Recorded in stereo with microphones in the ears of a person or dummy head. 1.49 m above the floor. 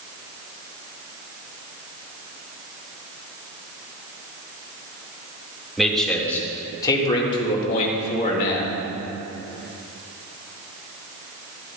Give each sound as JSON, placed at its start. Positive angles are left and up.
{"t": 5.8, "sound": "a man speaking", "side_deg": 0, "distance_m": 2.0}